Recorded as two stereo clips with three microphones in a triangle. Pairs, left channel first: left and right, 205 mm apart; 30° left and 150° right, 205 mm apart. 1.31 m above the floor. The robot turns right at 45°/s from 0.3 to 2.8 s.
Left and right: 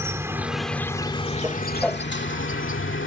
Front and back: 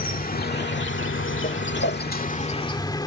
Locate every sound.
0.0 s an insect: 15° right; by 3.1 s 100° left
1.4 s a whoosh: 10° right; by 2.0 s 15° left